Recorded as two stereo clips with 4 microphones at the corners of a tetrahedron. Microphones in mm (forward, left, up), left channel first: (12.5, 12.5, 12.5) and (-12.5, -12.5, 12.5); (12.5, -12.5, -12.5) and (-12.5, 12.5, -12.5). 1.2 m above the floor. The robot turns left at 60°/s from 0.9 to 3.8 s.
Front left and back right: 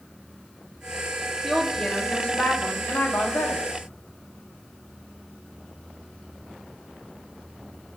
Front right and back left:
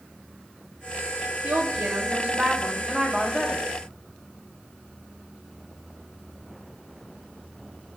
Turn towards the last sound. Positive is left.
turn(degrees=0)